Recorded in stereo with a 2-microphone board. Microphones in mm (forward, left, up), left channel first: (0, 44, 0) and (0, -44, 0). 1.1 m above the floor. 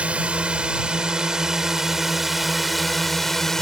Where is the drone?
15° right (ahead or behind); by 3.6 s 5° left (ahead or behind).